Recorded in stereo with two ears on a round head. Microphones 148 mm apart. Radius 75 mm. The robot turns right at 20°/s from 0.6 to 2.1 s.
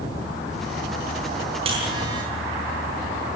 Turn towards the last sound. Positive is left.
turn(degrees=-25)  # may be behind; listen again after turning